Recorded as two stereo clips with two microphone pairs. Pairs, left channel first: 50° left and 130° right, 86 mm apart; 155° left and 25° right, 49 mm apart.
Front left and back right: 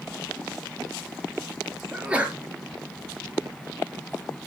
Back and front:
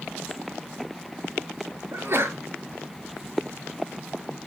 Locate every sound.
1.9 s a sneeze: 55° right, 2.5 m